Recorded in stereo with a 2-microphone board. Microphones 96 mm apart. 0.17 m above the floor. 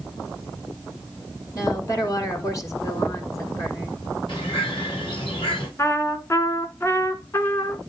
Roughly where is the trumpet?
Left.